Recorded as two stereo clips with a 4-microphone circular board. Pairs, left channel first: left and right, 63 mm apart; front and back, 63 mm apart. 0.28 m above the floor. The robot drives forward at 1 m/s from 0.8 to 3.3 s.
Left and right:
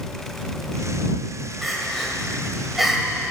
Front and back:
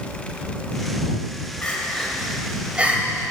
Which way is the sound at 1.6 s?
5° right.